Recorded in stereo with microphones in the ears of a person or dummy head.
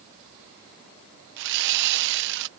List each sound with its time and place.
1.4 s sawing: 70° right (ahead or behind)